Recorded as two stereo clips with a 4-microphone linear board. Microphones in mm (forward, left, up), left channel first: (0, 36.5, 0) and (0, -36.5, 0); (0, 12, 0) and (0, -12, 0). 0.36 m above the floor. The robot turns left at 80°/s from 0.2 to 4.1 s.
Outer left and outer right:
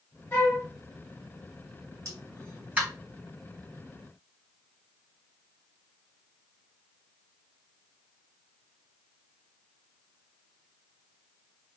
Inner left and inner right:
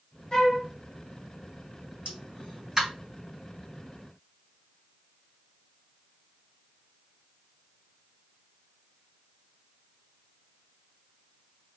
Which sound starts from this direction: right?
A pop, at 2.0 s.